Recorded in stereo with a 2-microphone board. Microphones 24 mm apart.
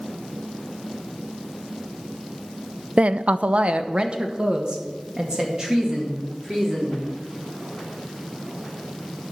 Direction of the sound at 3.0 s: 60° right (ahead or behind).